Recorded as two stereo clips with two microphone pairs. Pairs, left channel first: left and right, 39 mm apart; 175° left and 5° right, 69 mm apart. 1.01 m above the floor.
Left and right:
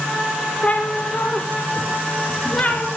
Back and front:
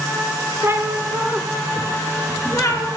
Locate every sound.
0.6 s a cat meowing: 45° left, 1.5 m; by 2.9 s 145° left, 2 m